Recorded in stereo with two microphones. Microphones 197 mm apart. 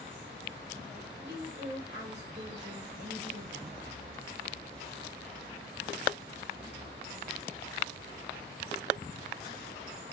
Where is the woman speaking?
65° right (ahead or behind), 2.5 m.